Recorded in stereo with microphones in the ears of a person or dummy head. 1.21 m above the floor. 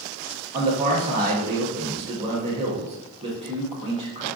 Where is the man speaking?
30° right (ahead or behind), 1.3 m.